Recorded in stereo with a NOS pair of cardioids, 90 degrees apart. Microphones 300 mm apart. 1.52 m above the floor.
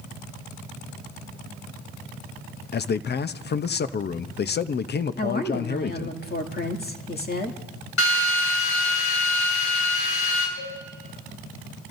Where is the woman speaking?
35° left, 2.5 m.